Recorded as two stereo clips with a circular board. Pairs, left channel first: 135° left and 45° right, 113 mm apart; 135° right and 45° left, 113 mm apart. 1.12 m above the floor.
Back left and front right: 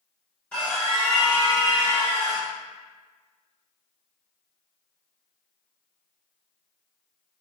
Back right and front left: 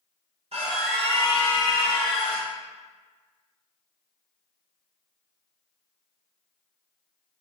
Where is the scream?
60° left, 1.3 m; by 2.5 s 100° left, 2.5 m.